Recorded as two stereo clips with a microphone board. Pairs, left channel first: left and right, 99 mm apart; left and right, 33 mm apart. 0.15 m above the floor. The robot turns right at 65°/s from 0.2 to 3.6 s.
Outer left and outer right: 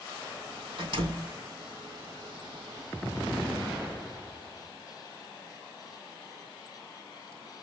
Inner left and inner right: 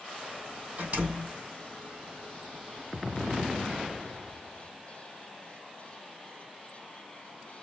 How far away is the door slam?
About 3.5 m.